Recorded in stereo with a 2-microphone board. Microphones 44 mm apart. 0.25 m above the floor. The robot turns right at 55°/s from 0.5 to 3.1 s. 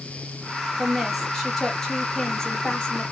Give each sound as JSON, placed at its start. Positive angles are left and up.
{"t": 0.8, "sound": "a woman speaking", "side_deg": -10, "distance_m": 1.2}